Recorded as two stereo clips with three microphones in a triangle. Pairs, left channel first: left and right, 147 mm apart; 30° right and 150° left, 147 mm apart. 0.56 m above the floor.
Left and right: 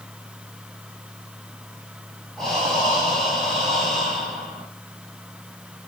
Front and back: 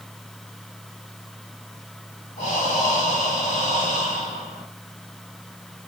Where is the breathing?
Straight ahead, 3 m.